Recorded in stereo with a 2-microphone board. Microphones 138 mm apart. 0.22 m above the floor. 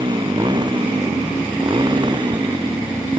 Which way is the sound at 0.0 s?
30° right (ahead or behind).